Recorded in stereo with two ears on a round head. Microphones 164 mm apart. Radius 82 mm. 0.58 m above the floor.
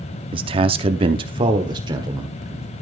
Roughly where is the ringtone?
I don't hear a ringtone.